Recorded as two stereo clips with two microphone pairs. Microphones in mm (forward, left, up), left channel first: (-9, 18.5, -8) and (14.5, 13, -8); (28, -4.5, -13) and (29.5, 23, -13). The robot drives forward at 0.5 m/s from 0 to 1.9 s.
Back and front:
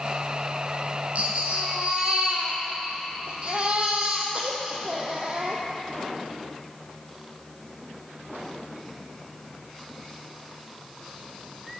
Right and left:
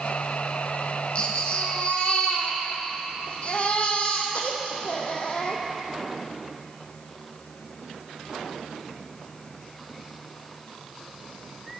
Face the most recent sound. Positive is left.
turn(degrees=-55)